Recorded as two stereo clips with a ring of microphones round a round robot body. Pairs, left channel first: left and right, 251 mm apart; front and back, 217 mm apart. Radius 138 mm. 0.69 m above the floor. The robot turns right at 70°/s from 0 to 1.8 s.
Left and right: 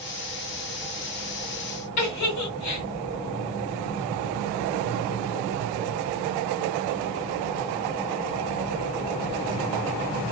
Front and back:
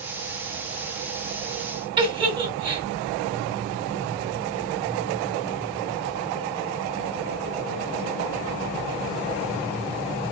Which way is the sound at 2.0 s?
110° left.